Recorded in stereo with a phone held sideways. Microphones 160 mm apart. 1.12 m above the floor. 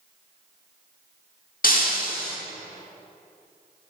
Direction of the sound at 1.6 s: 65° left (ahead or behind).